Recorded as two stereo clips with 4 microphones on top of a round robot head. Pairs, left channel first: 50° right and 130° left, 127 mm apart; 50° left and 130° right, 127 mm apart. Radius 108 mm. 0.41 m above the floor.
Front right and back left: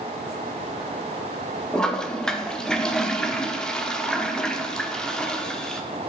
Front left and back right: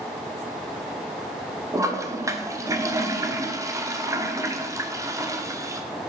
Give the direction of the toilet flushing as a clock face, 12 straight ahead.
4 o'clock.